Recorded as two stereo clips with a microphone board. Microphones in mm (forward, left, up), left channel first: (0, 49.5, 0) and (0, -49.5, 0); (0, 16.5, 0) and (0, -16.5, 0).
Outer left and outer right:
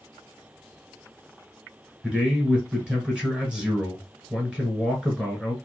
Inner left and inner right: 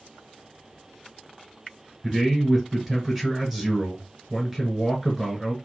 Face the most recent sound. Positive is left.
turn(degrees=-5)  # may be behind; listen again after turning